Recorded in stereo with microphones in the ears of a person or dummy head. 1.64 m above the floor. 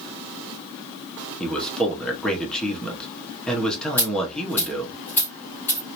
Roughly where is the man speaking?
Centre.